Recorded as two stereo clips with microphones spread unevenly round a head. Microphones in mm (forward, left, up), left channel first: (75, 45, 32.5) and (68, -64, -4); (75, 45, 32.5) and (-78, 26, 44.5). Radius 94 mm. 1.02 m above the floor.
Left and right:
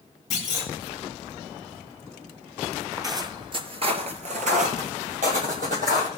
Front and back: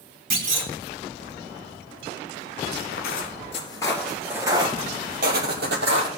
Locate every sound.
0.3 s a clunk: 160° left, 3 m
2.9 s footsteps: 25° right, 1.7 m; by 6.1 s 150° right, 2.5 m